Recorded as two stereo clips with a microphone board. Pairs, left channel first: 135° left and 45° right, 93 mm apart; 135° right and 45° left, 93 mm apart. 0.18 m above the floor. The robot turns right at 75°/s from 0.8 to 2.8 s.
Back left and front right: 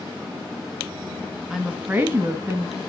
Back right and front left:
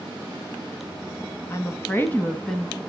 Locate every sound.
1.5 s a woman speaking: 130° right, 1.2 m; by 2.8 s 35° right, 1.2 m